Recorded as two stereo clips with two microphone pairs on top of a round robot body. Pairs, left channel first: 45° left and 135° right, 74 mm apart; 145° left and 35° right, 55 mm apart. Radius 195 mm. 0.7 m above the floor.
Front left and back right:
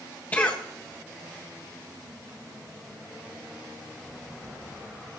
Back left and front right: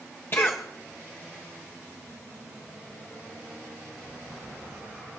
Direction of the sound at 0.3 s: 110° left.